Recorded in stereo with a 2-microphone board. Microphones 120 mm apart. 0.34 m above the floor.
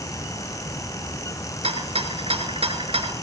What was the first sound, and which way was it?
A rattle, 55° right (ahead or behind).